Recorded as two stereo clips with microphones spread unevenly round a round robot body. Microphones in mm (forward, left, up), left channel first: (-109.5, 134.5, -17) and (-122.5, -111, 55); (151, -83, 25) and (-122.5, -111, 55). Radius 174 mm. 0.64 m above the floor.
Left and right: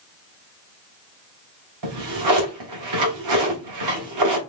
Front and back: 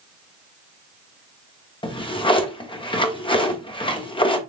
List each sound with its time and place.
1.8 s a drawer: 65° right, 1.2 m